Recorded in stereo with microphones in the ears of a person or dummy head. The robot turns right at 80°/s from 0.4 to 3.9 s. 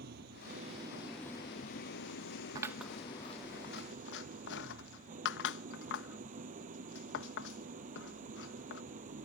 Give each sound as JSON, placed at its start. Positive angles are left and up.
{"t": 0.0, "sound": "an engine running", "azimuth_deg": -60}
{"t": 2.5, "sound": "scissors", "side_deg": -25}